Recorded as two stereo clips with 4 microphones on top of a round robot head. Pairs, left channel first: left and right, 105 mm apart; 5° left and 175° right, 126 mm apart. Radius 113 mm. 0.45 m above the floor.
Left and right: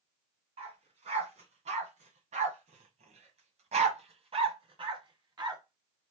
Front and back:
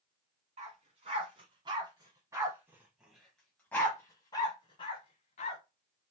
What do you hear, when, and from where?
0.6 s a dog barking: 130° right, 2 m; by 5.6 s 40° right, 1.6 m